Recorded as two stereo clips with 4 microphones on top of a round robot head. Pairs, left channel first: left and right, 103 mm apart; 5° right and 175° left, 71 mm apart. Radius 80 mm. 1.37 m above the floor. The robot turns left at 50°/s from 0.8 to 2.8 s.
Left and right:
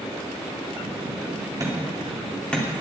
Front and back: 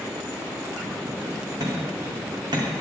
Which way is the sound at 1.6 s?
140° right.